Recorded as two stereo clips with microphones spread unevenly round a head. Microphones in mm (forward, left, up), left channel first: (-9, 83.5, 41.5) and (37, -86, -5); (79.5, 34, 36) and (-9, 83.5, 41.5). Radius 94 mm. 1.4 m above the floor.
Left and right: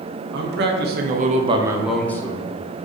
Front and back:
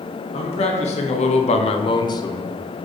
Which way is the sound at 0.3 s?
60° right.